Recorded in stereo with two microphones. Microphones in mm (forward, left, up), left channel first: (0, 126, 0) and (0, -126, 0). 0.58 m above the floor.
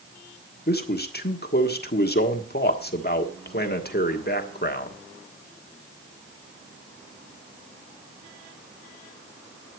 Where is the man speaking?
40° left (ahead or behind), 1.4 m.